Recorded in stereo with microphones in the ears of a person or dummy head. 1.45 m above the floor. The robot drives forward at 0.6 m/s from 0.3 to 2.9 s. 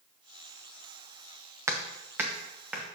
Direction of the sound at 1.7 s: 10° right (ahead or behind).